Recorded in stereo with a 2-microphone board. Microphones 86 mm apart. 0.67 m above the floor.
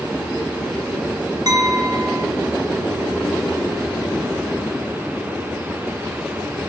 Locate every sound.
1.5 s a clink: 45° right (ahead or behind), 0.9 m